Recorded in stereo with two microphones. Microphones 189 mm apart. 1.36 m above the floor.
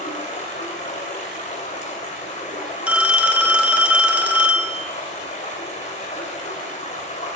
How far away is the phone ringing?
About 0.9 m.